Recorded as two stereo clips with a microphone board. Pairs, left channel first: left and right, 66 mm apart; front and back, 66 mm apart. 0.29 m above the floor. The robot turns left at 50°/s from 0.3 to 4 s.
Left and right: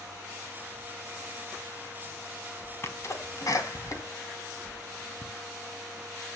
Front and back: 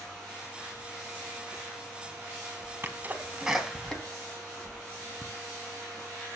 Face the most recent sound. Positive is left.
turn(degrees=75)